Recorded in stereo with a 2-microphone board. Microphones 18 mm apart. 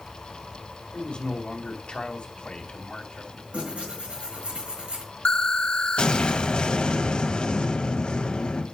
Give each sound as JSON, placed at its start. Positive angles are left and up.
{"t": 0.9, "sound": "a man speaking", "side_deg": 55, "distance_m": 2.0}
{"t": 3.5, "sound": "tearing paper", "side_deg": -85, "distance_m": 5.0}
{"t": 5.2, "sound": "an explosion", "side_deg": 55, "distance_m": 1.5}